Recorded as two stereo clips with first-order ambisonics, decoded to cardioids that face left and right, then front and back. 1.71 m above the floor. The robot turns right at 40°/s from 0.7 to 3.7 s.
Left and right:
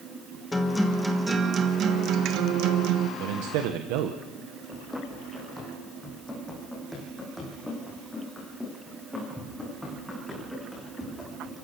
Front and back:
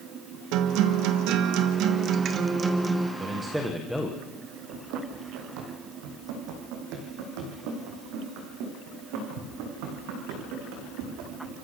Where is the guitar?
170° left, 1.4 m; by 3.1 s 95° right, 1.4 m.